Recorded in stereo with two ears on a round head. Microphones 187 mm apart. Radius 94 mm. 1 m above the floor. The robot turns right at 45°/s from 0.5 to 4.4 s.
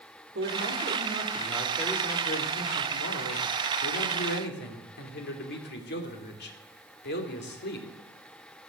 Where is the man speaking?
50° right, 3 m; by 7.9 s 125° left, 3 m.